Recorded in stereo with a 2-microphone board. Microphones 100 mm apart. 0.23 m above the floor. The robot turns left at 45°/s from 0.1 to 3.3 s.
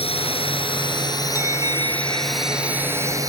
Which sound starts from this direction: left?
A drone, at 0.0 s.